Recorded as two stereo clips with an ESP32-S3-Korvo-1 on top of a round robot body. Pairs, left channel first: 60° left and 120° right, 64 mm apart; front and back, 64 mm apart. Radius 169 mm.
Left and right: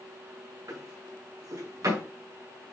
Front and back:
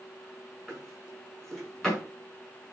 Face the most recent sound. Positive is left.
turn(degrees=-85)